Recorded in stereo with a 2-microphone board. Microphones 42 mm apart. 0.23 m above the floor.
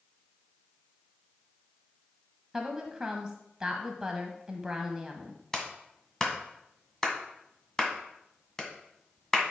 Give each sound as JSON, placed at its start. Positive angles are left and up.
{"t": 2.5, "sound": "a woman speaking", "side_deg": -15, "distance_m": 1.1}
{"t": 5.5, "sound": "a clap", "side_deg": 15, "distance_m": 1.7}